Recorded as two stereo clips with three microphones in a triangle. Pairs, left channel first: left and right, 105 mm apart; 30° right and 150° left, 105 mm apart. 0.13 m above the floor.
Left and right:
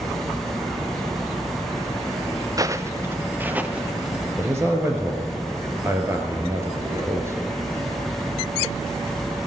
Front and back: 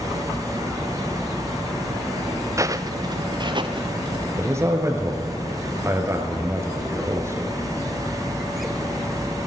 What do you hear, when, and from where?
2.6 s footsteps: 145° right, 0.8 m; by 4.3 s 170° right, 2.0 m
4.4 s a man speaking: 150° right, 2 m